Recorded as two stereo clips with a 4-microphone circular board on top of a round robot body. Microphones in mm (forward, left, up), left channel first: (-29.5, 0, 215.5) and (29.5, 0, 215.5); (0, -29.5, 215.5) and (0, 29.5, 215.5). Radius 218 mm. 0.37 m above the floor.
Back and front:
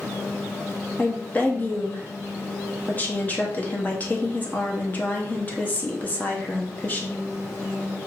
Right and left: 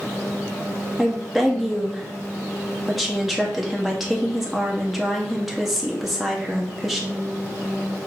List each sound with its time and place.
1.0 s a woman speaking: 175° left, 1.4 m